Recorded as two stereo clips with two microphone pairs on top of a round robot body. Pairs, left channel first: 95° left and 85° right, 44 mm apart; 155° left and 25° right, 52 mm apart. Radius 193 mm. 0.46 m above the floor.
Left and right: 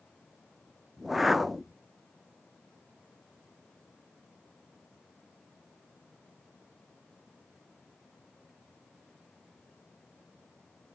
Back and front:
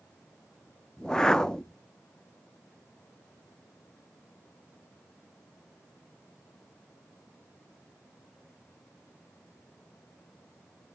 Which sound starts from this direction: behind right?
A whoosh, at 1.0 s.